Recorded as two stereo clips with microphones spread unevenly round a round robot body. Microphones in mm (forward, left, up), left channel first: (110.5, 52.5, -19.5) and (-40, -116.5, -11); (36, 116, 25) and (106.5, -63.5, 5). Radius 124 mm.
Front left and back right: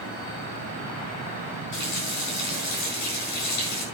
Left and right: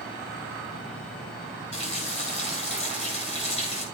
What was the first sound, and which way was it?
A running tap, 55° left.